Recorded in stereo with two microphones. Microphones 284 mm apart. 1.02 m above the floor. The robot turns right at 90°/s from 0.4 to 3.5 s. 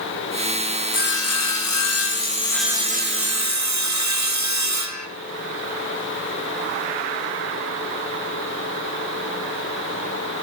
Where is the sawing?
30° left, 0.8 m; by 5.1 s 100° right, 0.8 m.